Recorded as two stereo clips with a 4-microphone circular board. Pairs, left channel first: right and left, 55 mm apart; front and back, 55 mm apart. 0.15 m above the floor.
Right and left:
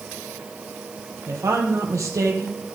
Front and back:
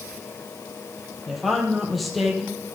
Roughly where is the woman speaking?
Left.